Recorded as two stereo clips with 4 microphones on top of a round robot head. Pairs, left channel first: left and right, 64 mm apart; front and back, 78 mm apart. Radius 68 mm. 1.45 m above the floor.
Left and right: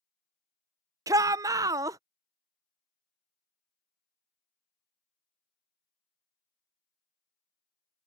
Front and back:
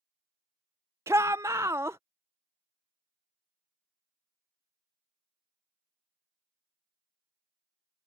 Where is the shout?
115° right.